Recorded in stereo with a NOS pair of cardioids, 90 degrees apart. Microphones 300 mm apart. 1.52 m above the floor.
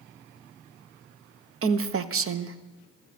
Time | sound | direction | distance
1.6 | a woman speaking | 50° right | 1.0 m